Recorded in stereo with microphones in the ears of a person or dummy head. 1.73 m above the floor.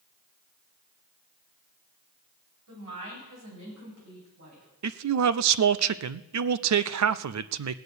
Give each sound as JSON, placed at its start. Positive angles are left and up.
{"t": 2.7, "sound": "a woman speaking", "side_deg": -80, "distance_m": 8.0}
{"t": 4.8, "sound": "a man speaking", "side_deg": -80, "distance_m": 0.6}